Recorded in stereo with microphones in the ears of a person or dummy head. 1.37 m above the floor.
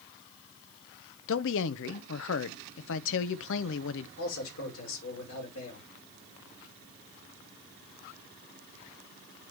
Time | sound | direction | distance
1.3 | a man speaking | 70° left (ahead or behind) | 0.7 m
4.2 | a man speaking | 80° left | 5 m